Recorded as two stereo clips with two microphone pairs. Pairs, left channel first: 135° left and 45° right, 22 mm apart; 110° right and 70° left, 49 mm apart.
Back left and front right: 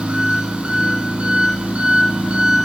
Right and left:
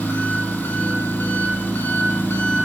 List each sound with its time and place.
0.0 s an engine running: 70° right, 1.4 m